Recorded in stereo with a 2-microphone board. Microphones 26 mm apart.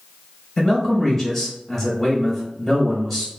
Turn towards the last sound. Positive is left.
turn(degrees=0)  # may be behind; listen again after turning